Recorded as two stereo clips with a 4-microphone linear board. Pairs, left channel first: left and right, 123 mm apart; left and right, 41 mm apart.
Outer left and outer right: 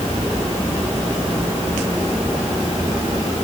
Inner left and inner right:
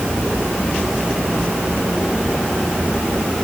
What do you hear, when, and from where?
Only background noise.